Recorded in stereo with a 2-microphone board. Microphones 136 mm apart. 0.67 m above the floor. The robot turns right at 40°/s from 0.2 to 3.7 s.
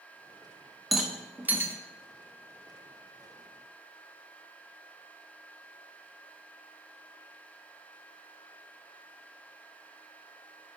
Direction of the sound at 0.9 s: Centre (ahead or behind).